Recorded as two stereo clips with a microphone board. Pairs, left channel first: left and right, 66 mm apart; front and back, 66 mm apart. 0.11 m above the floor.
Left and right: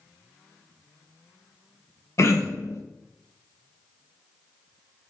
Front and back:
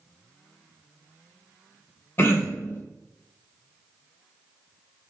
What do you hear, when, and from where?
2.2 s throat clearing: 50° left, 0.5 m